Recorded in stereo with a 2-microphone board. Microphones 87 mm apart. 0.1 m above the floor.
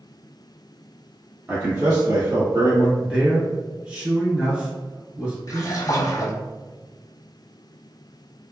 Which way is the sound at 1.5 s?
30° right (ahead or behind).